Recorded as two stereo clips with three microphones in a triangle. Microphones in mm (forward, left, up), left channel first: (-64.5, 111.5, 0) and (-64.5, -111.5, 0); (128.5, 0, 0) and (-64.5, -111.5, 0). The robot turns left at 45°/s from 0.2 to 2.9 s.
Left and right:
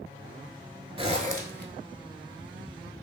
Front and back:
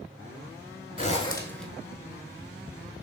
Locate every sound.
1.0 s a zipper: 30° right, 0.5 m; by 1.7 s 60° right, 0.5 m